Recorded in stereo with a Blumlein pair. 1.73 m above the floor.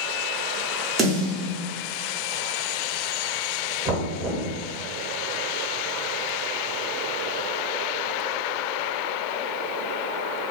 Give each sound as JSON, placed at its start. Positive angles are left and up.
{"t": 1.0, "sound": "a snare drum", "azimuth_deg": -20, "distance_m": 0.9}
{"t": 3.9, "sound": "knocking", "azimuth_deg": -25, "distance_m": 1.1}